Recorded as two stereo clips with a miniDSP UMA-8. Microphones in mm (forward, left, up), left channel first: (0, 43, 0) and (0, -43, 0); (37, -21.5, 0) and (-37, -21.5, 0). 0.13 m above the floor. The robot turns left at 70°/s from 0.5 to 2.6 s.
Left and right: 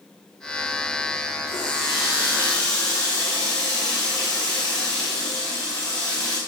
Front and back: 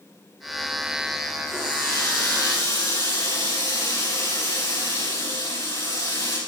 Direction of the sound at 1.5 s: 90° left.